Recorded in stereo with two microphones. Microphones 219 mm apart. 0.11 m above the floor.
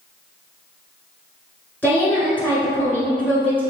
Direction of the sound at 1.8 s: 10° left (ahead or behind).